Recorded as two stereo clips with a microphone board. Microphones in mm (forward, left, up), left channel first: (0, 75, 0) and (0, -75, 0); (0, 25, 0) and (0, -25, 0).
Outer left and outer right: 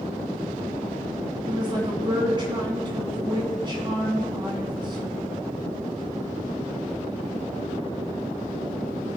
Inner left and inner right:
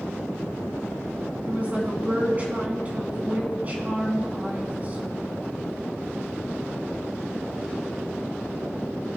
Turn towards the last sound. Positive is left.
turn(degrees=-35)  # may be behind; listen again after turning